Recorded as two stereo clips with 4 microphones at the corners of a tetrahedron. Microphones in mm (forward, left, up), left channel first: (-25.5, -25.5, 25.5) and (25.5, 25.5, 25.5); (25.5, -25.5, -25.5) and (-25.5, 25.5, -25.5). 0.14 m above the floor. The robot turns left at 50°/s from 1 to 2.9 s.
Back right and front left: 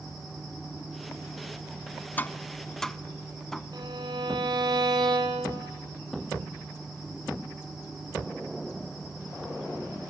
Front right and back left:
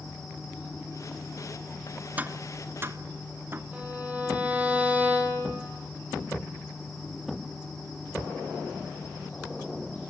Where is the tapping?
Straight behind, 0.6 m; by 3.6 s 145° left, 0.6 m.